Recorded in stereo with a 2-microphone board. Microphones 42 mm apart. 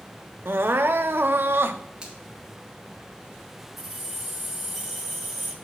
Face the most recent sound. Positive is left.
turn(degrees=0)  # may be behind; listen again after turning